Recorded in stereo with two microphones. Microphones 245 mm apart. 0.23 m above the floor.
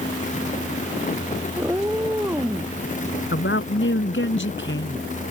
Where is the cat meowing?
10° right (ahead or behind).